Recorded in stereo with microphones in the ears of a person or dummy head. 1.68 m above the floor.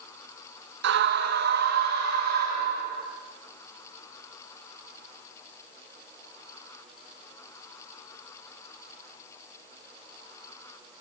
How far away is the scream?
About 2.5 m.